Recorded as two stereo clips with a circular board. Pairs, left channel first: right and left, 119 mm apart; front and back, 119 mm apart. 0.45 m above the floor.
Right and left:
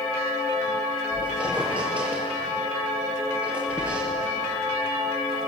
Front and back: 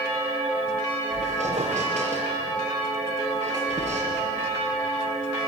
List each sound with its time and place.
1.1 s a squeak: 170° left, 6 m